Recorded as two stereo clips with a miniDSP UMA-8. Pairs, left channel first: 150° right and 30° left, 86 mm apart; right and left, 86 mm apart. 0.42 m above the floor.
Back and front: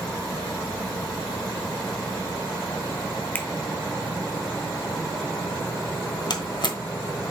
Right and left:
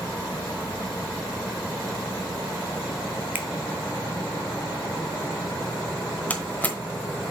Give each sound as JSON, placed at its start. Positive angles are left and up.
{"t": 3.4, "sound": "a finger snap", "azimuth_deg": 150, "distance_m": 0.9}
{"t": 6.3, "sound": "a door slam", "azimuth_deg": -160, "distance_m": 1.1}